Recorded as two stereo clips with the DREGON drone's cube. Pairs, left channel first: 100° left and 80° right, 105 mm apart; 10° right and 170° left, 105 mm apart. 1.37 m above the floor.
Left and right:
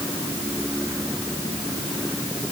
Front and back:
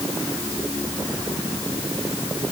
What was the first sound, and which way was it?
Only background noise.